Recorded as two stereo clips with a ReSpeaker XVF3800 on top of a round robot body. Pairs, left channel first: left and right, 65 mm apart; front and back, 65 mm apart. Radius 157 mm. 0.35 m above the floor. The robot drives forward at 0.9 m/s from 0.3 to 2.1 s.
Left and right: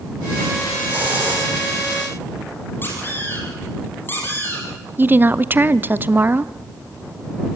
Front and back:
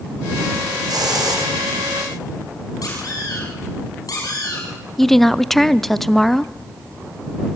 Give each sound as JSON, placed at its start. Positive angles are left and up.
{"t": 0.9, "sound": "a hiss", "azimuth_deg": -155, "distance_m": 4.0}
{"t": 2.8, "sound": "a squeak", "azimuth_deg": 30, "distance_m": 5.5}
{"t": 5.0, "sound": "a woman speaking", "azimuth_deg": -85, "distance_m": 0.8}